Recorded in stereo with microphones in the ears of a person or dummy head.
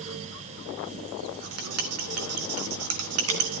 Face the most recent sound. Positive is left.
turn(degrees=-85)